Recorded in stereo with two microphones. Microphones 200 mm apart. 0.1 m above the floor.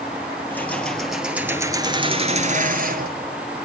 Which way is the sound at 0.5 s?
10° left (ahead or behind).